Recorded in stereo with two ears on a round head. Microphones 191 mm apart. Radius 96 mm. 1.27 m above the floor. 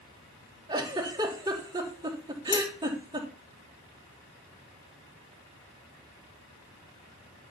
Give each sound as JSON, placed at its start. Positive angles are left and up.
{"t": 0.7, "sound": "a giggle", "side_deg": -20, "distance_m": 3.0}
{"t": 2.5, "sound": "a dropped coin", "side_deg": 20, "distance_m": 1.6}